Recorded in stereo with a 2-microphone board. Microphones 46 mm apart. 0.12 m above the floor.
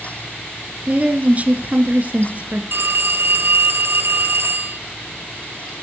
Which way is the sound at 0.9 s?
35° right (ahead or behind).